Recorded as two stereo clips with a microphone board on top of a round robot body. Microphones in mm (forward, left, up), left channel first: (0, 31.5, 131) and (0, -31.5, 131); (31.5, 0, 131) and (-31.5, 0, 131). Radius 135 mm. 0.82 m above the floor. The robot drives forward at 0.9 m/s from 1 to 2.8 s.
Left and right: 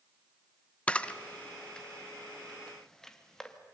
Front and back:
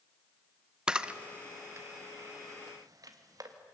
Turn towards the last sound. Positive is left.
turn(degrees=170)